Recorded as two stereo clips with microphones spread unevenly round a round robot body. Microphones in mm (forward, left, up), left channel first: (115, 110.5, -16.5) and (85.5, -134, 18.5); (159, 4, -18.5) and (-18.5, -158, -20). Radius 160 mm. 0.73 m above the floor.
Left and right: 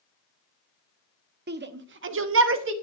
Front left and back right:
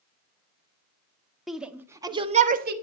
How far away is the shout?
About 1.6 m.